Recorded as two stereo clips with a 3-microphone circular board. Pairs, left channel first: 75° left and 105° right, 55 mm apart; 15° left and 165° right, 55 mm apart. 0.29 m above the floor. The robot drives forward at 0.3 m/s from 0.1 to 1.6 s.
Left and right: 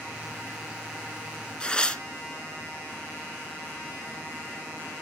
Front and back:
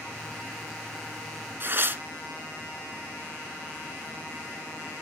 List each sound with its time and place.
1.6 s tearing paper: 145° left, 1.1 m